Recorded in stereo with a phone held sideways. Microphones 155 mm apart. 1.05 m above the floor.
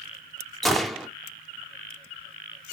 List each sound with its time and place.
0.6 s a gunshot: centre (ahead or behind), 0.8 m